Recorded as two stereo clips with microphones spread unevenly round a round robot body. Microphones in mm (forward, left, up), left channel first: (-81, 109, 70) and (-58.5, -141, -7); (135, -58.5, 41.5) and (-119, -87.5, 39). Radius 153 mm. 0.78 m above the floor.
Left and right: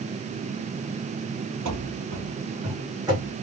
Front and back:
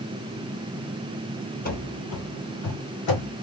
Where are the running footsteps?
45° right, 1.3 m; by 3.3 s straight ahead, 3 m.